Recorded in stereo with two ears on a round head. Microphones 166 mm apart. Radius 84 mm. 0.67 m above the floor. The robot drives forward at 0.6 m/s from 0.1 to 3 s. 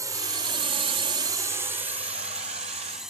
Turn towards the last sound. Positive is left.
turn(degrees=-5)  # may be behind; listen again after turning